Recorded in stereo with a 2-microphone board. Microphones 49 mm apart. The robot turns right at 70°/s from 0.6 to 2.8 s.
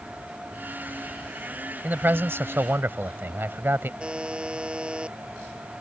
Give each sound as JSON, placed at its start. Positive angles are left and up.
{"t": 1.8, "sound": "a man speaking", "azimuth_deg": -135}
{"t": 4.0, "sound": "a buzzer", "side_deg": -20}